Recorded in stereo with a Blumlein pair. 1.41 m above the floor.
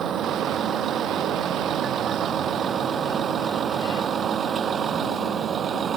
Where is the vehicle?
25° right.